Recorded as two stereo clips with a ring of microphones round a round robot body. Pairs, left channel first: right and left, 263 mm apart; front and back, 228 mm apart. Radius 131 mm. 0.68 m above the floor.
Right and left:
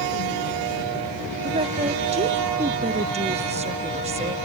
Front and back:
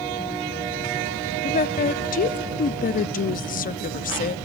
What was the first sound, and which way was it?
A woman speaking, 35° left.